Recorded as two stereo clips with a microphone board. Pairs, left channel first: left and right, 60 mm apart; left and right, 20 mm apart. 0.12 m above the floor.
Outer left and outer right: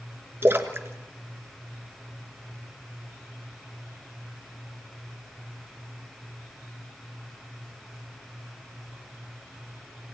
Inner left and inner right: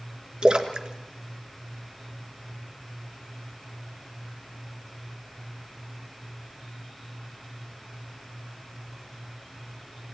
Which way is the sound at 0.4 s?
40° right (ahead or behind).